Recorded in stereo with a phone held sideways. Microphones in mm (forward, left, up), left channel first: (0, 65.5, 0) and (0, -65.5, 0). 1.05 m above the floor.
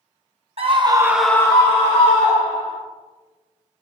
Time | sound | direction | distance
0.6 | a scream | 50° right (ahead or behind) | 1.1 m